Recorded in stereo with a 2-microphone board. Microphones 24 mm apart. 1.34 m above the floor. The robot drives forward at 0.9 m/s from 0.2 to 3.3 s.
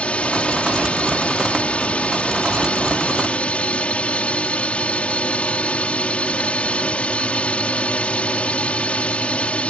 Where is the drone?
55° left (ahead or behind); by 9.7 s 60° left (ahead or behind).